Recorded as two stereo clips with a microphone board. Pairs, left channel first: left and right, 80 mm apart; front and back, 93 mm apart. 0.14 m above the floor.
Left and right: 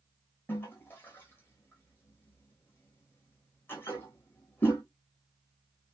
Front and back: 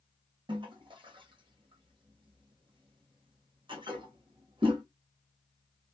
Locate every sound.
0.5 s a toilet flushing: 155° left, 1.2 m